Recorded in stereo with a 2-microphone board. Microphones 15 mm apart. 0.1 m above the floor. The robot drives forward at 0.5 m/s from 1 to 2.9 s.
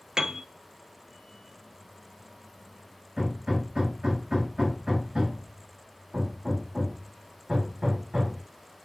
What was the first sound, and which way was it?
A piano, 45° right (ahead or behind).